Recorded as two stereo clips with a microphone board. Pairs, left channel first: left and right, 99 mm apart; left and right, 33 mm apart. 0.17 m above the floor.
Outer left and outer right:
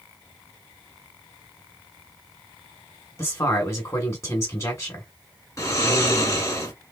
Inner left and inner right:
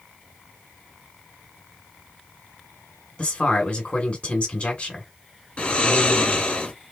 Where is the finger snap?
I don't hear a finger snap.